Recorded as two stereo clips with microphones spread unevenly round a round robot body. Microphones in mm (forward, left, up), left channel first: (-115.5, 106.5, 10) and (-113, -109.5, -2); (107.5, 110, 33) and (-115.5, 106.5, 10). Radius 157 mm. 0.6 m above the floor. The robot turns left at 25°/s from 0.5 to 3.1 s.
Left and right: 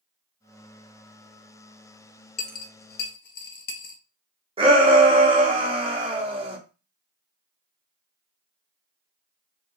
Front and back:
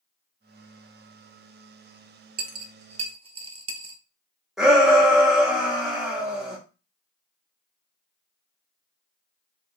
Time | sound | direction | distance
2.4 | a dropped coin | 135° left | 1.0 m
4.6 | a shout | 105° right | 0.9 m